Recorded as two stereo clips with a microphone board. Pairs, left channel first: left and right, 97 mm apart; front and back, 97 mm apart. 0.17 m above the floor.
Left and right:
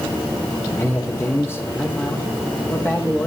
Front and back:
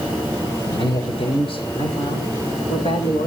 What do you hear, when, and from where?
0.7 s a man speaking: 25° left, 8 m; by 3.3 s 15° left, 7.5 m